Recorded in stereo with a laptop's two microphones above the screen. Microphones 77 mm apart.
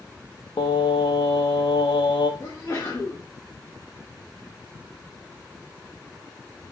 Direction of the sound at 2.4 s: 40° left (ahead or behind).